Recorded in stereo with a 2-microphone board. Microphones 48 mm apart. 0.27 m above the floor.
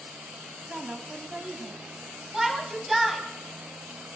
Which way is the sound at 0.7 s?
25° right (ahead or behind).